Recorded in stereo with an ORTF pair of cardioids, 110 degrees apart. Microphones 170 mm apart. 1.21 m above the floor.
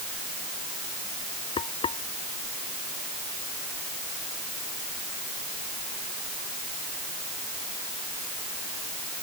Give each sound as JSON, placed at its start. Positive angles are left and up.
{"t": 1.6, "sound": "frying", "azimuth_deg": 35}